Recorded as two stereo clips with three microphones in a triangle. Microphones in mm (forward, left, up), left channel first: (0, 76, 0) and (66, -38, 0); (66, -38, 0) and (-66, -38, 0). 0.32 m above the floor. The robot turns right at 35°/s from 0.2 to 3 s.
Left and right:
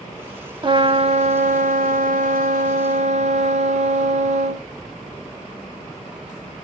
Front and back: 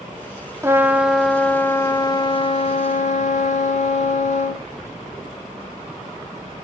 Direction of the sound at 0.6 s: 110° right.